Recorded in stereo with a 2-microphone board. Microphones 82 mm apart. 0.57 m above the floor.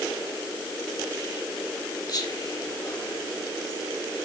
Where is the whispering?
50° left (ahead or behind), 3 m.